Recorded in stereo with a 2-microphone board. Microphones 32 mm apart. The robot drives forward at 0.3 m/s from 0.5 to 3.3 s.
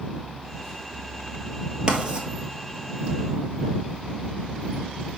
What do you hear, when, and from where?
1.9 s writing: 30° right (ahead or behind), 1.2 m